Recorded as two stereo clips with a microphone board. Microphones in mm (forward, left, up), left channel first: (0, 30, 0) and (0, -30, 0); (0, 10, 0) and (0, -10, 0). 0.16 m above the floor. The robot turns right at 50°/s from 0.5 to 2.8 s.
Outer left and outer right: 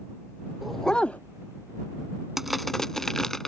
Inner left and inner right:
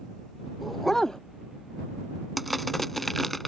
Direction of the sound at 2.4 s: 5° right (ahead or behind).